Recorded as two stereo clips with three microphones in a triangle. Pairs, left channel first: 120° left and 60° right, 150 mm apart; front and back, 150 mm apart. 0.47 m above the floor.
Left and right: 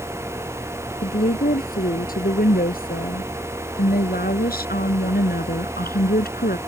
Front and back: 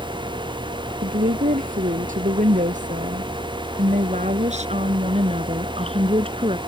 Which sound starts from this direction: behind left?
A woman speaking, at 1.0 s.